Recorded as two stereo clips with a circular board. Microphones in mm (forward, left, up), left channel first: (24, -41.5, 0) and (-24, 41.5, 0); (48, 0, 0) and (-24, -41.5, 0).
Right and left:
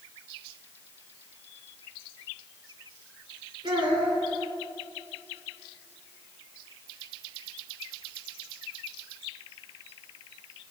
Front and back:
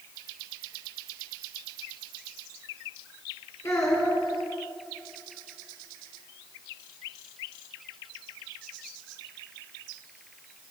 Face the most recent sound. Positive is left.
turn(degrees=85)